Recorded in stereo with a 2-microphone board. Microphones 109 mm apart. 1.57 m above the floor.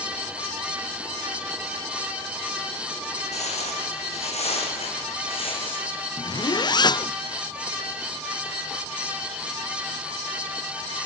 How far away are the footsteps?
About 6 m.